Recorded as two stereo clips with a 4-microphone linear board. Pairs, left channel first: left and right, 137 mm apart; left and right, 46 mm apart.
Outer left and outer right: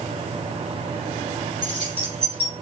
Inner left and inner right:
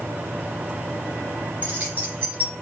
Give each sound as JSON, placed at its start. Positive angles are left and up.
{"t": 1.6, "sound": "keys jangling", "side_deg": -40, "distance_m": 2.0}